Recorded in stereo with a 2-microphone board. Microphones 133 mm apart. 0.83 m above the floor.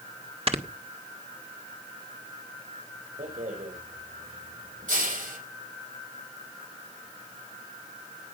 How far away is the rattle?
About 5 m.